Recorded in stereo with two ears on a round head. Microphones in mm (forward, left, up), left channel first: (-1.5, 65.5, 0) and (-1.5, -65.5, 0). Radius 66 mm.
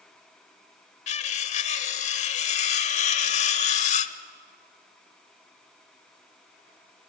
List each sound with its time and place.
1.1 s cutlery clinking: 50° left (ahead or behind), 0.9 m